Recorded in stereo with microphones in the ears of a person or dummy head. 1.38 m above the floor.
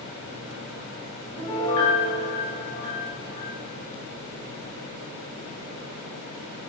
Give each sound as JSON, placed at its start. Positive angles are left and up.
{"t": 1.4, "sound": "a piano", "side_deg": 15, "distance_m": 0.9}